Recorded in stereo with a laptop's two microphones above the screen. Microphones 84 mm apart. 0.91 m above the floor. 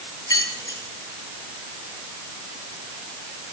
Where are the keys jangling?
50° left (ahead or behind), 5.5 m.